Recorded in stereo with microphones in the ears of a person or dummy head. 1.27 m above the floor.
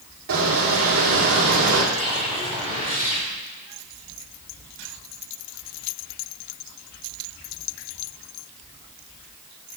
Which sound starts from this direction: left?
A whoosh, at 1.9 s.